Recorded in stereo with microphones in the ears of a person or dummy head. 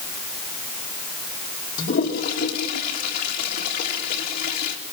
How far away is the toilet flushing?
About 2.5 m.